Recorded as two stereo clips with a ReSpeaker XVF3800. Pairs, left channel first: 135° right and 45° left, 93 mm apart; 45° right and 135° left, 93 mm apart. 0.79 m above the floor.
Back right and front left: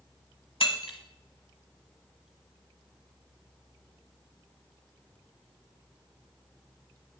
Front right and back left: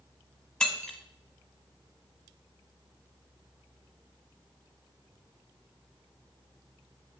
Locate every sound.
0.6 s breaking glass: 125° right, 1.3 m